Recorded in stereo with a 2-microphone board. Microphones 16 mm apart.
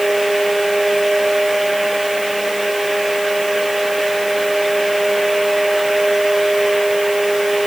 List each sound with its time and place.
Only background noise.